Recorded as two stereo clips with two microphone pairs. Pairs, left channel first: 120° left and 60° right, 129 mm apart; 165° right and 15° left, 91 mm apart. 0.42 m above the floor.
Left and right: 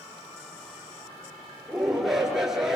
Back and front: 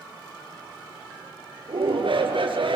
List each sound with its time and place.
1.7 s a shout: 30° left, 7 m